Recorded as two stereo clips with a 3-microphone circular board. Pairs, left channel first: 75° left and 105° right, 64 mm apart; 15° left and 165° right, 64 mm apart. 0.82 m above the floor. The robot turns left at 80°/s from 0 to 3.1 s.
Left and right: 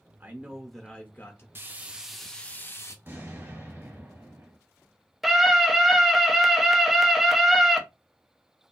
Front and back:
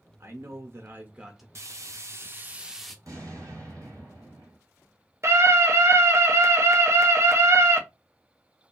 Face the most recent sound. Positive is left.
turn(degrees=170)